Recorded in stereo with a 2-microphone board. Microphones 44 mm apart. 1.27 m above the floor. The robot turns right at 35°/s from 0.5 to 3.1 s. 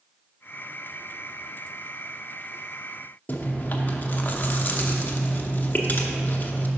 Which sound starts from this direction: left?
Chewing, at 3.3 s.